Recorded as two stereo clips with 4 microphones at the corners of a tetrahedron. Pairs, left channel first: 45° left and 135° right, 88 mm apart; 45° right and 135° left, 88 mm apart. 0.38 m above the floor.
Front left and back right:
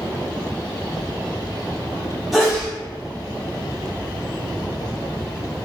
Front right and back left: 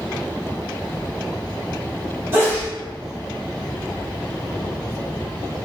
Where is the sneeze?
140° left, 1.2 m.